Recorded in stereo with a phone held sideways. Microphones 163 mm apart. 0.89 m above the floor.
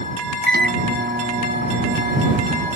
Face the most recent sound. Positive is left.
turn(degrees=-85)